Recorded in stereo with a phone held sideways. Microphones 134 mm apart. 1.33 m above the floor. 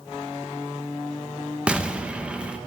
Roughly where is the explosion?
Centre.